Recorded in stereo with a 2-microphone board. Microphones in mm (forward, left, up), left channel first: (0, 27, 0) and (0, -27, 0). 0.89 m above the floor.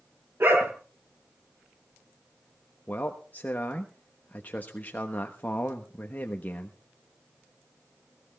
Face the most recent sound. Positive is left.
turn(degrees=35)  # may be behind; listen again after turning